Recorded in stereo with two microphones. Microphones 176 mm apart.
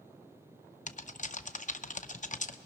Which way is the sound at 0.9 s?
45° left (ahead or behind).